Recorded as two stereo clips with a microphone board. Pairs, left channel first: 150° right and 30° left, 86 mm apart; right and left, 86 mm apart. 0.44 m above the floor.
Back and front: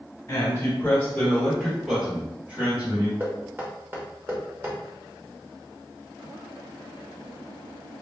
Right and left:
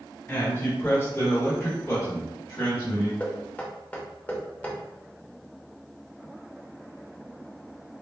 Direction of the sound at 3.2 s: 25° right.